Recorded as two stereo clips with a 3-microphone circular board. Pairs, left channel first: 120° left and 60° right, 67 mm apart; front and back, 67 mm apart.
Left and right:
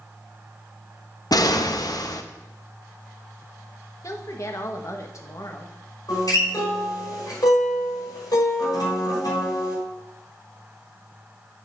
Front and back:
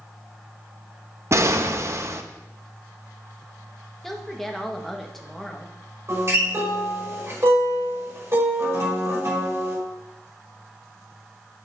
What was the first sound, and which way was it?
An explosion, 135° left.